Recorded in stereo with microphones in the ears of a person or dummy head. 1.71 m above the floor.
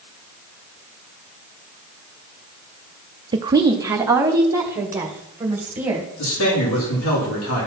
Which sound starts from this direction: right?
A woman speaking, at 3.3 s.